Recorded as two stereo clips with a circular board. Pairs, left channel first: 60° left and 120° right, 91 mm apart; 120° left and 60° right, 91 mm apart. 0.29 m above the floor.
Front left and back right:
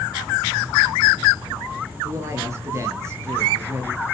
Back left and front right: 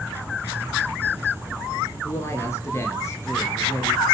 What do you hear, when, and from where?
2.0 s a woman speaking: straight behind, 5 m